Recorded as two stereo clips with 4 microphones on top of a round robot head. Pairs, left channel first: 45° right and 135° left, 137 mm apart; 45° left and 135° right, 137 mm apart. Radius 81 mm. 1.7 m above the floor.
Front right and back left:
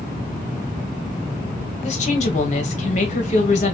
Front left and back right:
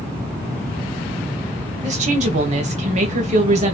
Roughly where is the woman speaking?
Right.